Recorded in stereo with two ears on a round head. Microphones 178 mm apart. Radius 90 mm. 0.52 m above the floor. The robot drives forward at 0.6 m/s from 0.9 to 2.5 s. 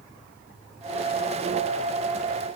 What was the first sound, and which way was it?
Only background noise.